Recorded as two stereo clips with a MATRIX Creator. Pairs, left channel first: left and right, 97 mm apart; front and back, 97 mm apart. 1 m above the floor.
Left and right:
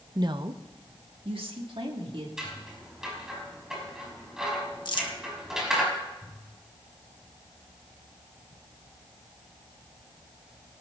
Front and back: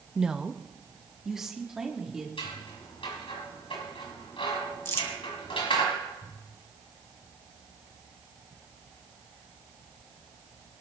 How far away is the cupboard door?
I don't hear a cupboard door.